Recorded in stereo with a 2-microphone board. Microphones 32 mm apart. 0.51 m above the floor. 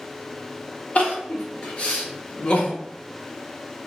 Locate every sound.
0.9 s crying: 40° left (ahead or behind), 0.8 m